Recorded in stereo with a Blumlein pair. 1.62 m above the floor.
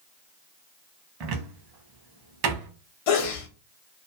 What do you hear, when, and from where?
1.2 s a cupboard door: 40° right, 0.8 m
3.1 s a sneeze: 50° left, 0.9 m